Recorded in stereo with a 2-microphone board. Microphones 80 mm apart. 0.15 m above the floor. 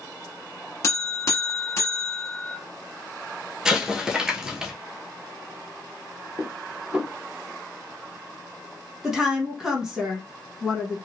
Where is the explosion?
10° right (ahead or behind), 0.9 m.